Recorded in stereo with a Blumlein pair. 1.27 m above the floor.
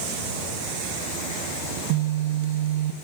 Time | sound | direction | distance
1.7 | a phone buzzing | 50° right | 0.6 m